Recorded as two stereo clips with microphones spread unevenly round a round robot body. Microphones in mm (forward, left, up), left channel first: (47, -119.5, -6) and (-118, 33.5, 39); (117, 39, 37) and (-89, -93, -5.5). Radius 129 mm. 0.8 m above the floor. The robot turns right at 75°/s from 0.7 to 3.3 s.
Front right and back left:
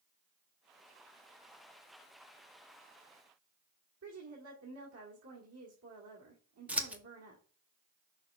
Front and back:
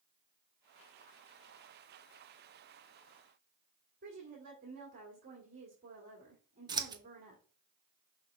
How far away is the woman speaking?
About 2.0 m.